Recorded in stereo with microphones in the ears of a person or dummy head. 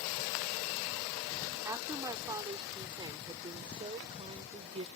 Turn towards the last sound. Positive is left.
turn(degrees=-30)  # may be behind; listen again after turning